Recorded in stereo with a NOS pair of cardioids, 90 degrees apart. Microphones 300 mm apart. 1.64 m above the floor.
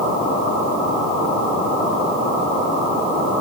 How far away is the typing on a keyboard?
I don't hear typing on a keyboard.